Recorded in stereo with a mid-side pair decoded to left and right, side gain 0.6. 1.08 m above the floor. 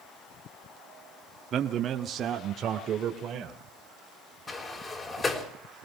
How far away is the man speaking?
About 1.7 m.